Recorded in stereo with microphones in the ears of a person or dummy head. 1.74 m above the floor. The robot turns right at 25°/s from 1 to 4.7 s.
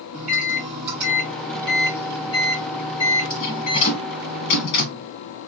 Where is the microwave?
10° right, 1.1 m; by 5.1 s 80° left, 1.1 m.